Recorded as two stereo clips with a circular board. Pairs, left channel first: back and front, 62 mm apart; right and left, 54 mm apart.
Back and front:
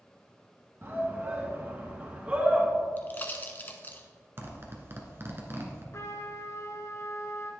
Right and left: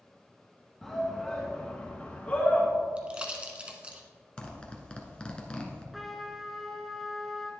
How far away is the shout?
About 2 m.